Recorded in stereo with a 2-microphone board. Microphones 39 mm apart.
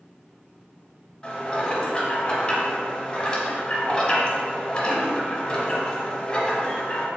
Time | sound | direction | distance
1.2 | dishes clattering | 20° left (ahead or behind) | 0.7 m